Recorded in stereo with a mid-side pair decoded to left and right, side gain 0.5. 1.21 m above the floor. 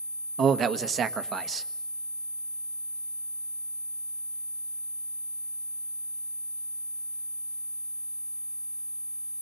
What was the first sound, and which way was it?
A man speaking, 50° right.